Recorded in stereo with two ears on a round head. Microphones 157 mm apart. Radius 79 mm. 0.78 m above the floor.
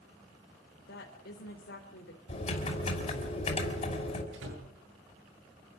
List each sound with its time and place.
0.8 s a woman speaking: 70° left (ahead or behind), 3.5 m
2.3 s typing on a keyboard: 35° left (ahead or behind), 5.5 m
4.3 s a door slam: 80° right, 9 m